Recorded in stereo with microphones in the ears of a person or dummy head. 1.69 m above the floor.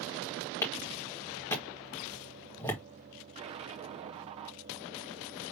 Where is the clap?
15° left (ahead or behind), 1.8 m.